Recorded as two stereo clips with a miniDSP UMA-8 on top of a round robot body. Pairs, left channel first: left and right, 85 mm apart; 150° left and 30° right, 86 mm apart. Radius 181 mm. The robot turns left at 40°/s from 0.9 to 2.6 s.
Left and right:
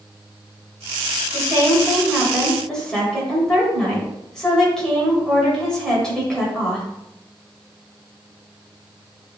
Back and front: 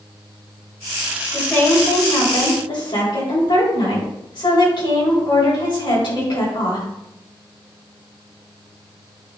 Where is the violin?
No violin in this recording.